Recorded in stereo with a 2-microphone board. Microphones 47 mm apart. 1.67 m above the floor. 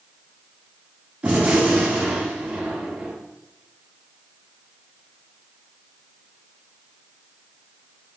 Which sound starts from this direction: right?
A gunshot, at 1.2 s.